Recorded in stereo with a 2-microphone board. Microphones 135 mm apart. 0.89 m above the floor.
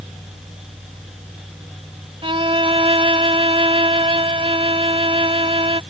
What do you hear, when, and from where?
2.2 s a violin: 40° right (ahead or behind)